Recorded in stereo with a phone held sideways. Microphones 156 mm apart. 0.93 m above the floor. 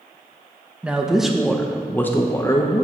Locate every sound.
0.8 s a man speaking: 5° right (ahead or behind), 1.1 m; by 2.9 s 25° left (ahead or behind), 0.9 m